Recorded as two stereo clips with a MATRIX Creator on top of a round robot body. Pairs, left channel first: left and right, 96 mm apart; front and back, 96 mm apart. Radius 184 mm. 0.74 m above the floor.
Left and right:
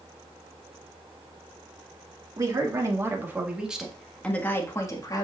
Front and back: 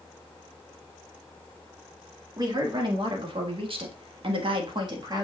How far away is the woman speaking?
About 2.5 m.